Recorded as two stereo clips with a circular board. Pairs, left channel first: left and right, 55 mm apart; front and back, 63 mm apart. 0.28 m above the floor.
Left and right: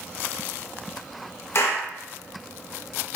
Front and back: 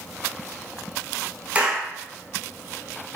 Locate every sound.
1.6 s a clap: 115° left, 2.5 m